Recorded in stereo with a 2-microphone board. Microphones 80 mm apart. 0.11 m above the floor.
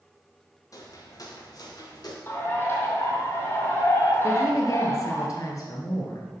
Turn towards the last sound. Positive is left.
turn(degrees=45)  # may be behind; listen again after turning